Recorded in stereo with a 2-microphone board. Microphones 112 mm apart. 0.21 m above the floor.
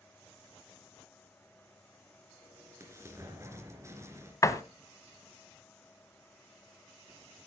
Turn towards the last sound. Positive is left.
turn(degrees=30)  # may be behind; listen again after turning